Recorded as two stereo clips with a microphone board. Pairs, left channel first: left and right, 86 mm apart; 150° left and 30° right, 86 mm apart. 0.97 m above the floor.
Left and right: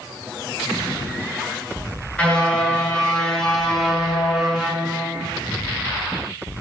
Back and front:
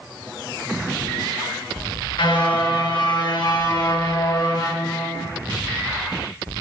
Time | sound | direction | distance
2.2 | a car horn | 165° left | 8 m